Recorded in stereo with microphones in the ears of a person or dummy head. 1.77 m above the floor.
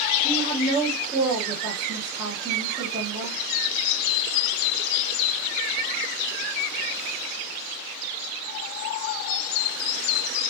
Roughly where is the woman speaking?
Right.